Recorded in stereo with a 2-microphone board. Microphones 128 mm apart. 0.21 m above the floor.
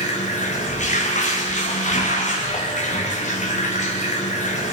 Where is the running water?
65° left (ahead or behind), 4 m.